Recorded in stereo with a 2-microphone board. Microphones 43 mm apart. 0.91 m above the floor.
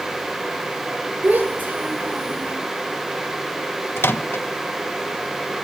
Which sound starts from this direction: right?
A child speaking, at 1.2 s.